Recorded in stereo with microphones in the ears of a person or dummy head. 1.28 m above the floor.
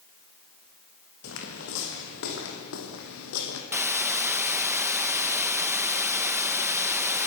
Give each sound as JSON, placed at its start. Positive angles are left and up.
{"t": 1.2, "sound": "footsteps", "side_deg": 65, "distance_m": 5.5}
{"t": 3.7, "sound": "a hiss", "side_deg": -10, "distance_m": 1.0}